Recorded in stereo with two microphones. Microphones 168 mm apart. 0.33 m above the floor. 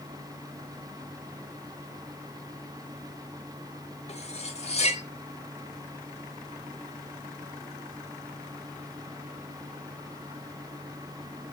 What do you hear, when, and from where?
4.1 s cutlery clinking: 40° left (ahead or behind), 0.9 m